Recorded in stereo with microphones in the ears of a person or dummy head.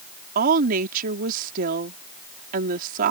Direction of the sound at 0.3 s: 45° right (ahead or behind).